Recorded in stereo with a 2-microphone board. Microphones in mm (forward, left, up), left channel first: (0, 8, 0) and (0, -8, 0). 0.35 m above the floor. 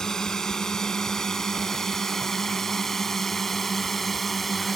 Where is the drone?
40° left (ahead or behind); by 4.8 s 5° left (ahead or behind).